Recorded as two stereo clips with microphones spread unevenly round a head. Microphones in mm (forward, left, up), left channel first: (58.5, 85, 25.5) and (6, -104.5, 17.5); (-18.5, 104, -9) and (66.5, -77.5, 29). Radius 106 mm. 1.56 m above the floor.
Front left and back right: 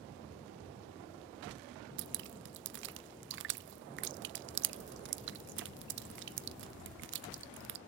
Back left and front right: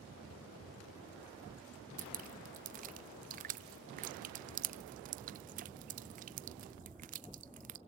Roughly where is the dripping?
Behind right.